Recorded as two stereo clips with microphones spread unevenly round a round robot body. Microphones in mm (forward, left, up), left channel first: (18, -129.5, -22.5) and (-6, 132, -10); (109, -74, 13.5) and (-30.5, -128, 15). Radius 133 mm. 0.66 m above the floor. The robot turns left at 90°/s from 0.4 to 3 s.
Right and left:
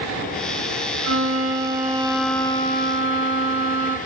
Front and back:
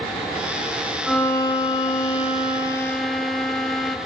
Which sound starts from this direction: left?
A violin, at 1.0 s.